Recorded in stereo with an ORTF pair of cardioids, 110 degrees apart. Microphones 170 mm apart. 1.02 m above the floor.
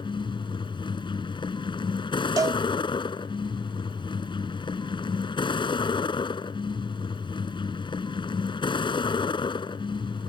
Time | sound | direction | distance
0.0 | a vehicle | 30° left | ?
2.4 | a cowbell | 20° right | ?